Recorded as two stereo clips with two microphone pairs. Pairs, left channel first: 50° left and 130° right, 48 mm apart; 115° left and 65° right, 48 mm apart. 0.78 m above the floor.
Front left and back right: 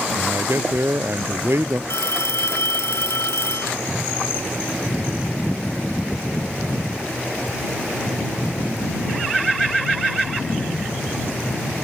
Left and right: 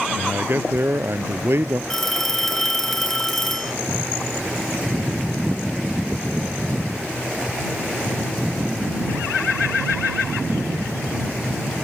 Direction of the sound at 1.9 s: 30° left.